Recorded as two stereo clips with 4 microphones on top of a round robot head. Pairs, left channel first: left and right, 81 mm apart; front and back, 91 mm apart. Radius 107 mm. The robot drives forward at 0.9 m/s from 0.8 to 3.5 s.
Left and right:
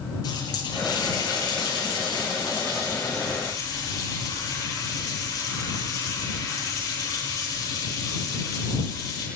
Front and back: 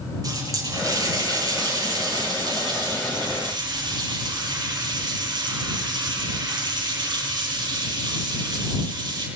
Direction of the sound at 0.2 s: 130° left.